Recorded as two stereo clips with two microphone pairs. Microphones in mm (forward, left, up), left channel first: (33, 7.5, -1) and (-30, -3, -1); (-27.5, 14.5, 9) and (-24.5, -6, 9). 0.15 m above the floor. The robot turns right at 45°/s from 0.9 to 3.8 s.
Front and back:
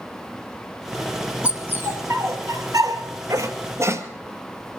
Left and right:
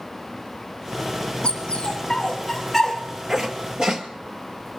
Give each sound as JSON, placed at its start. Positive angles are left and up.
{"t": 1.4, "sound": "a dog barking", "azimuth_deg": 120, "distance_m": 1.5}